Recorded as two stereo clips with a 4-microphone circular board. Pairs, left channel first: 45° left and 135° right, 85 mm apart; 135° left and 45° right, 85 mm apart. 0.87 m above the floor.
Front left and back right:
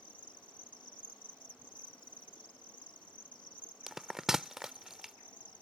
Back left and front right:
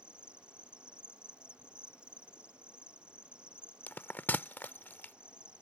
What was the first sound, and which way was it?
An insect, 35° left.